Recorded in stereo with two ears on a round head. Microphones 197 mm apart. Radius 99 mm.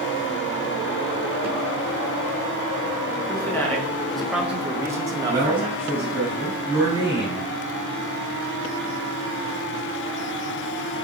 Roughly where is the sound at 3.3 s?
Centre.